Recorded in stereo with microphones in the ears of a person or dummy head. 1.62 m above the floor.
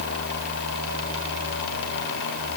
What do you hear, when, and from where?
Only background noise.